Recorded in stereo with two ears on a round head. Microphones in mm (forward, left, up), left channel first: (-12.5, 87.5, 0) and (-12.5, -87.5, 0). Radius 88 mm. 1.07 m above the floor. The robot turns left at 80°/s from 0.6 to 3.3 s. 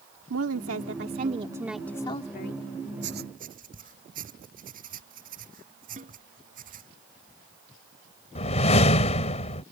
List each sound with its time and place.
0.3 s a woman speaking: 85° right; by 2.6 s 115° left
3.0 s writing: 70° right (ahead or behind); by 6.9 s 45° right (ahead or behind)
6.0 s a snare drum: 40° right (ahead or behind)
8.3 s a whoosh: 35° left (ahead or behind)